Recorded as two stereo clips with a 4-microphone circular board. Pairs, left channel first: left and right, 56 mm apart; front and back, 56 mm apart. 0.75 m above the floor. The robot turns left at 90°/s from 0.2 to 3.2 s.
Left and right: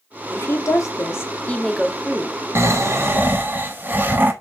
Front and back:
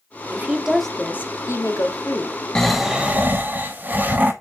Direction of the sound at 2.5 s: 75° right.